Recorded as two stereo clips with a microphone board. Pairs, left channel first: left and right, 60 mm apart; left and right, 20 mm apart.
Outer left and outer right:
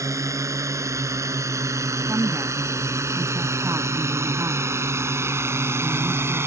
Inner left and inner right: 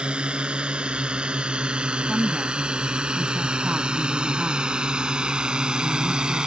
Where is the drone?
60° right (ahead or behind); by 6.5 s 45° right (ahead or behind).